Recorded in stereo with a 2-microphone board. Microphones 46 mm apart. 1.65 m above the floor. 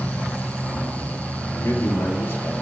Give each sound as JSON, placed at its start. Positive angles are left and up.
{"t": 1.6, "sound": "a man speaking", "side_deg": 60, "distance_m": 4.5}